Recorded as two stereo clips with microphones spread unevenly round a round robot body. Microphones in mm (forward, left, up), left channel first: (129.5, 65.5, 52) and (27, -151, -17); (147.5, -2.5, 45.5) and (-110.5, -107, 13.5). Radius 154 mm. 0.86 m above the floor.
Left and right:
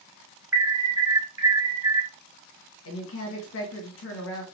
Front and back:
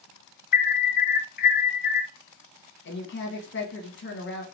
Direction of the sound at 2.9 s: 55° left.